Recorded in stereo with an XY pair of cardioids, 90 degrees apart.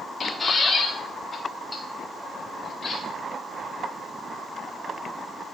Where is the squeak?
30° left, 1.5 m.